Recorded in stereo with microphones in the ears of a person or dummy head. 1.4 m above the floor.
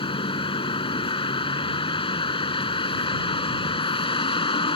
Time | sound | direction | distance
0.0 | a vehicle | 25° left (ahead or behind) | ?